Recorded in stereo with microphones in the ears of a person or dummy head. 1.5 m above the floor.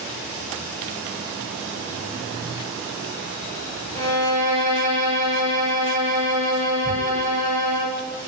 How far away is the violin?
About 1.0 m.